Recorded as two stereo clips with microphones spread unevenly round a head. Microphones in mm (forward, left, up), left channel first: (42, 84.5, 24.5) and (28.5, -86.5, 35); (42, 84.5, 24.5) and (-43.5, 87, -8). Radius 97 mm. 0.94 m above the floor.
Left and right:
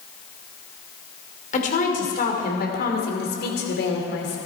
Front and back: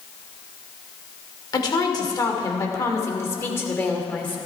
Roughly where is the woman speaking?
Ahead left.